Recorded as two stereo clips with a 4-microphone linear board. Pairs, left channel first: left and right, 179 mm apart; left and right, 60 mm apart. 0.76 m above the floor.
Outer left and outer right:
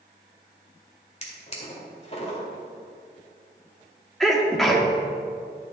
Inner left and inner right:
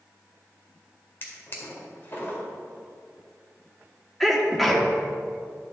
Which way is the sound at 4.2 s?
Centre (ahead or behind).